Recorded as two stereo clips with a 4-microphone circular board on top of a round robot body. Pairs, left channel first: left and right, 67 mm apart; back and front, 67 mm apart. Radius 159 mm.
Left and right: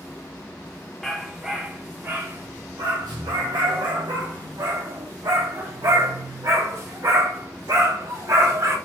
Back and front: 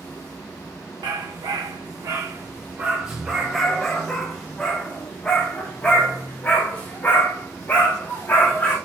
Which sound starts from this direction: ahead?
A dog barking, at 1.0 s.